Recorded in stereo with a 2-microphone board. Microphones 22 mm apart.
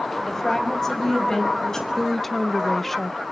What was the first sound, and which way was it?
A woman speaking, 15° left (ahead or behind).